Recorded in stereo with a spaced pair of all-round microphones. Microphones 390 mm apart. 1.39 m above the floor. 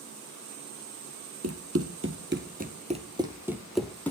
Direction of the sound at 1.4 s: 40° right (ahead or behind).